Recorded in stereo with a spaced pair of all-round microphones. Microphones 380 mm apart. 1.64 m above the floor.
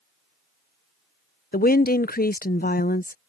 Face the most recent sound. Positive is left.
turn(degrees=25)  # may be behind; listen again after turning